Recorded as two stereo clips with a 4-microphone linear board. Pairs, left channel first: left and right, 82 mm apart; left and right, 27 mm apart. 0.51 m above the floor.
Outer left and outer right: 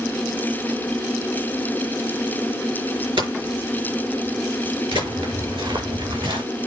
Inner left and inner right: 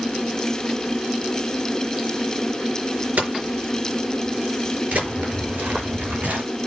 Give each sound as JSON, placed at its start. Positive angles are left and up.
{"t": 3.2, "sound": "hammering", "side_deg": -85, "distance_m": 4.5}
{"t": 4.9, "sound": "footsteps", "side_deg": -85, "distance_m": 6.5}